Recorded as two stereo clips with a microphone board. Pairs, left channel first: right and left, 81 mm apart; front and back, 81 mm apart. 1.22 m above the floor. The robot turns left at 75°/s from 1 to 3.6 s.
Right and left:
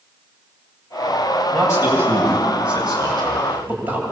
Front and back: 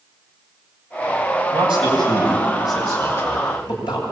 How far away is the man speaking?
About 8.5 m.